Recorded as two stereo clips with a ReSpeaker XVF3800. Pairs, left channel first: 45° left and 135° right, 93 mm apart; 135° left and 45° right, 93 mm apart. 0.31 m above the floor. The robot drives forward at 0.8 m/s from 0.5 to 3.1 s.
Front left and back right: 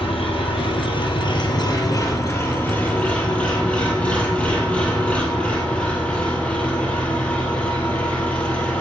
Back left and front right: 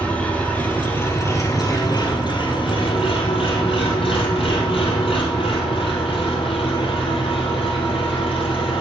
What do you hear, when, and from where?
0.0 s an engine running: 60° left, 2 m; by 8.8 s 120° left, 2 m